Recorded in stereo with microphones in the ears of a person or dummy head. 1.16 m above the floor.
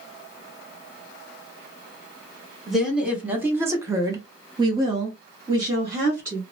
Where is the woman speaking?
5° right (ahead or behind), 1.2 m; by 6.4 s 15° right (ahead or behind), 1.4 m.